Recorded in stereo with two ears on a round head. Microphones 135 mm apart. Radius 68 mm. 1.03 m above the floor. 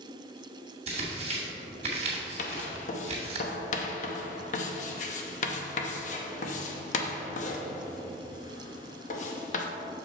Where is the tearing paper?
45° right (ahead or behind), 2.0 m.